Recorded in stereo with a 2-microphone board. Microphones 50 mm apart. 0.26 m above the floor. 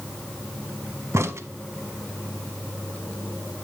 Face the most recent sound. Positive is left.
turn(degrees=-65)  # may be behind; listen again after turning